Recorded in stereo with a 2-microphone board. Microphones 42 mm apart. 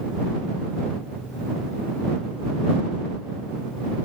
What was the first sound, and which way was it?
Only background noise.